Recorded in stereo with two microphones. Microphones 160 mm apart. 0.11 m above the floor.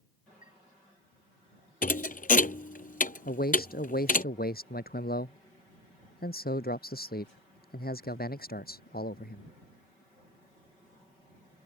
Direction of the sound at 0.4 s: 55° left (ahead or behind).